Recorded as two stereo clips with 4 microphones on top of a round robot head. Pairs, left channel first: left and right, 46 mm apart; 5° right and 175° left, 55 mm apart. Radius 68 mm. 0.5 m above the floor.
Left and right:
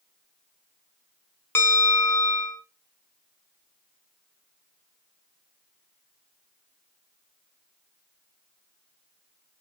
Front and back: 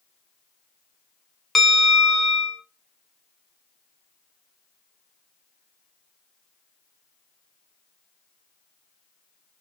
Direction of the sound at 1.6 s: 85° left.